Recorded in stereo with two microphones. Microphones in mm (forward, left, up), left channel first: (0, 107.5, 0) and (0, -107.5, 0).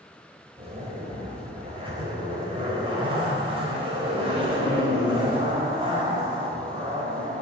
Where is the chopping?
No chopping in this recording.